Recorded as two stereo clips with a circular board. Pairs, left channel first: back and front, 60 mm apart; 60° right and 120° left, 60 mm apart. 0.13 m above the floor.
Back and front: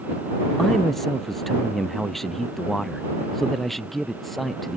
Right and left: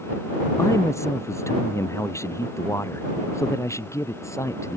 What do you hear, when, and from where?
0.6 s a man speaking: 95° right